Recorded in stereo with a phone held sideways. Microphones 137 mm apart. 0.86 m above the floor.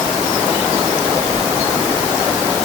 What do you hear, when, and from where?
Only background noise.